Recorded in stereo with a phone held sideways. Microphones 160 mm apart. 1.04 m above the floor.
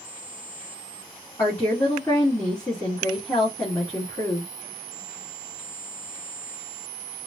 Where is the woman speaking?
20° left (ahead or behind), 2 m.